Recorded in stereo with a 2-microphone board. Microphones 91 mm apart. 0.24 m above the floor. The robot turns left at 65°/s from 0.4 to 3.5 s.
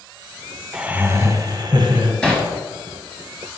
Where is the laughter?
10° right, 1.9 m; by 2.1 s 100° right, 1.9 m.